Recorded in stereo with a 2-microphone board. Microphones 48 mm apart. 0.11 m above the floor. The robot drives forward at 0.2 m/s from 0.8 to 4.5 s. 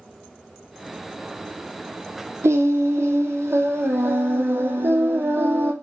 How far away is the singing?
About 0.7 m.